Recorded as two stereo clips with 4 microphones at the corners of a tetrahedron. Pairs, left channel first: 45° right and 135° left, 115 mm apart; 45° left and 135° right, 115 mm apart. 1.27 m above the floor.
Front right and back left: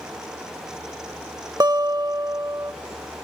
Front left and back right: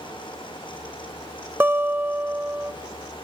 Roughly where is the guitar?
Behind.